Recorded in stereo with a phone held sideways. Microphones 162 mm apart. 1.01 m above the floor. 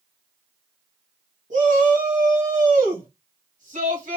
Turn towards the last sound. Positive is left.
turn(degrees=-55)  # may be behind; listen again after turning